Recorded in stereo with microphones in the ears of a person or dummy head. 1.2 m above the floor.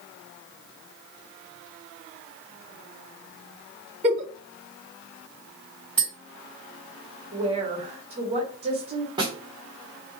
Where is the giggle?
35° right (ahead or behind), 0.8 m.